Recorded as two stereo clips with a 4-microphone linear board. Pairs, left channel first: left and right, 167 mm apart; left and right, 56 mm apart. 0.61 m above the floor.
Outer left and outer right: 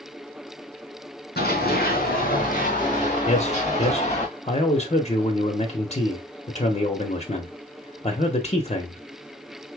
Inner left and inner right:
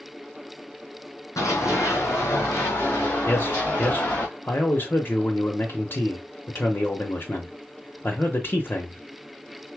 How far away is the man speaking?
About 1.0 m.